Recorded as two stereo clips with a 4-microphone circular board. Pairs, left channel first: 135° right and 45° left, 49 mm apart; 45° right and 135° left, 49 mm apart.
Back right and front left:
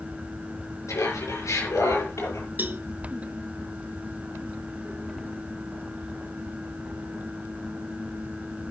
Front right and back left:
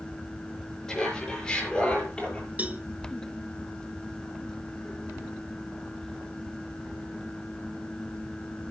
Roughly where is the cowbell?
Left.